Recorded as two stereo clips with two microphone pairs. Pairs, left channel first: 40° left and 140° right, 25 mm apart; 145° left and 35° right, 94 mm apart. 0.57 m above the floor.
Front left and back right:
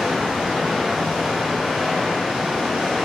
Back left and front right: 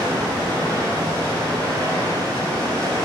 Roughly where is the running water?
Ahead right.